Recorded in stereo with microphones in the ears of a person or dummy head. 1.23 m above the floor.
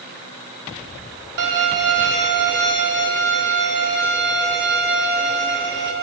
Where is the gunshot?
I don't hear a gunshot.